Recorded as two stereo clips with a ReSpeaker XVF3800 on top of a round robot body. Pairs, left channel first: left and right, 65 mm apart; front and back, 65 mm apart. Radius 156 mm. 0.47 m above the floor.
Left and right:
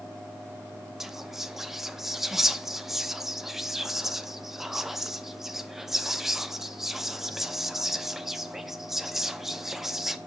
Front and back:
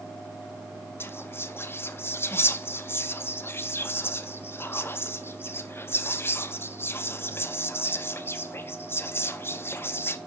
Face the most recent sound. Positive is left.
turn(degrees=-10)